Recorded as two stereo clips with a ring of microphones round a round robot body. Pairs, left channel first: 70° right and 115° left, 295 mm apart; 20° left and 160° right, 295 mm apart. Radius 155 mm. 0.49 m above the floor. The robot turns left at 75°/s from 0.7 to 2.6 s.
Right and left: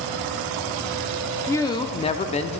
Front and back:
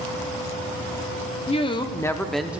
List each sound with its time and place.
1.5 s a woman speaking: straight ahead, 0.7 m; by 2.6 s 85° right, 0.7 m